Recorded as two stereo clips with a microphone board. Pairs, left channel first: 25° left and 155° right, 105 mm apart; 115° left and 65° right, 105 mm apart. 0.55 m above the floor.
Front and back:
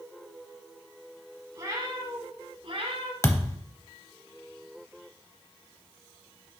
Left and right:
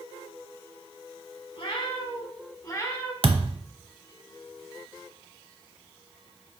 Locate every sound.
1.6 s a cat meowing: 145° left, 1.5 m; by 3.1 s straight behind, 1.2 m
3.2 s a thud: 40° right, 0.7 m